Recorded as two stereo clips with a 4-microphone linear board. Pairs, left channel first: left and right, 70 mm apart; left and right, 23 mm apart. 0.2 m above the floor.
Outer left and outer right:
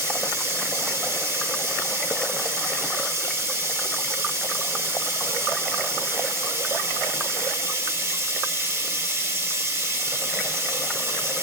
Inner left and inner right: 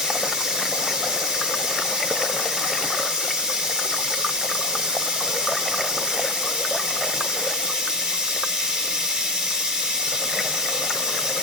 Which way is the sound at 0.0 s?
35° right (ahead or behind).